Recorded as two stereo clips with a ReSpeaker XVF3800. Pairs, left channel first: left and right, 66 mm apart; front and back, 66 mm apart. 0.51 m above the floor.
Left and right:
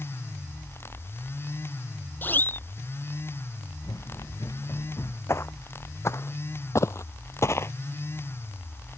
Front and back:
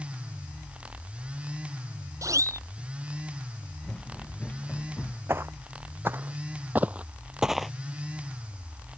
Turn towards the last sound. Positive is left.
turn(degrees=85)